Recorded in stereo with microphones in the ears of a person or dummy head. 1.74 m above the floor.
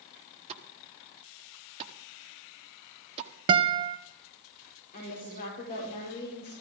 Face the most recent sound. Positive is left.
turn(degrees=40)  # may be behind; listen again after turning